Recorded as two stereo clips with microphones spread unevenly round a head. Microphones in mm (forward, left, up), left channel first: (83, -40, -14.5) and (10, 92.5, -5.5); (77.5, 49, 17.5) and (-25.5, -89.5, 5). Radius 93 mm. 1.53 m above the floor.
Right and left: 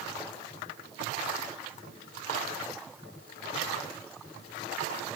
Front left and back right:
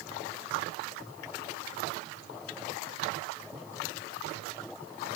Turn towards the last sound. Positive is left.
No sound to turn to.